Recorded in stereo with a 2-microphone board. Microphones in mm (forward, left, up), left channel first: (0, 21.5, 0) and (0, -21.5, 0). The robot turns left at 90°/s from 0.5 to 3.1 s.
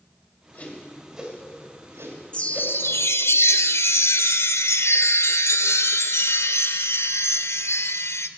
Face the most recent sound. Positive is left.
turn(degrees=85)